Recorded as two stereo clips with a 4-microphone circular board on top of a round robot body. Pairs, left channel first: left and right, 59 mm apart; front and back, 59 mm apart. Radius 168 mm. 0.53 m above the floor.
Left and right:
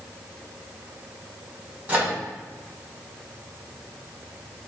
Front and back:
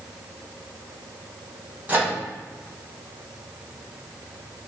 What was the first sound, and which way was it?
A microwave, 140° right.